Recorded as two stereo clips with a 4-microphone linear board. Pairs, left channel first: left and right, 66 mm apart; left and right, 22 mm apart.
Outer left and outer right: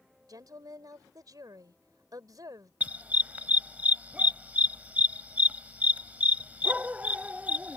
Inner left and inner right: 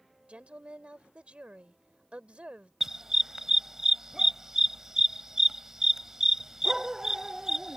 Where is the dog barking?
25° right (ahead or behind).